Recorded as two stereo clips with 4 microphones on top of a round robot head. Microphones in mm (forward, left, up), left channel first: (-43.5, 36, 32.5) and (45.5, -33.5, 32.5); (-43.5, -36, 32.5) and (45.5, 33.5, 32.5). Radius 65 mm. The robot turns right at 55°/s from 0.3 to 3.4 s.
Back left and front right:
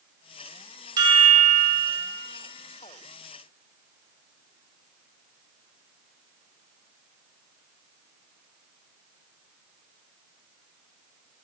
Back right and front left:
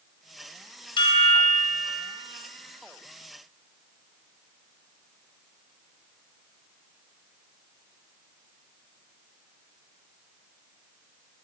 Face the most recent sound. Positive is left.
turn(degrees=40)